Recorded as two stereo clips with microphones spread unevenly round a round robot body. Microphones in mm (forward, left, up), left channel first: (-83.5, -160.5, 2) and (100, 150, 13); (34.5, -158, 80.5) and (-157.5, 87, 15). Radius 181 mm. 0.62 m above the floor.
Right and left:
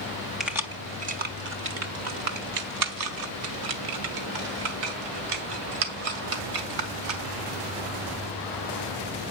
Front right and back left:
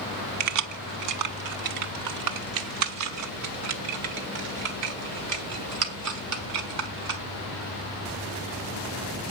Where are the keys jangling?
150° left, 1.2 m; by 7.2 s 75° left, 4.5 m.